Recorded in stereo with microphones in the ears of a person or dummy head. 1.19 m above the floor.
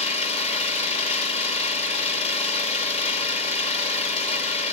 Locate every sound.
0.0 s an engine running: 30° left (ahead or behind), 1.3 m